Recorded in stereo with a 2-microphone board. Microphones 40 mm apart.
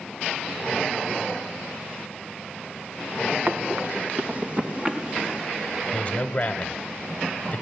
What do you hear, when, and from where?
3.5 s running footsteps: 45° right (ahead or behind), 2.5 m; by 5.5 s 15° right (ahead or behind), 4.5 m
5.9 s a man speaking: 30° left (ahead or behind), 1.4 m